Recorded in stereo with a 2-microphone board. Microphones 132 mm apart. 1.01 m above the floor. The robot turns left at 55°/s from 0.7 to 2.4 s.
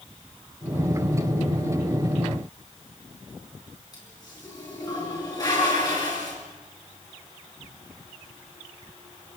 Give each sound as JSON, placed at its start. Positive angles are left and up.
{"t": 3.9, "sound": "a toilet flushing", "side_deg": 30, "distance_m": 7.0}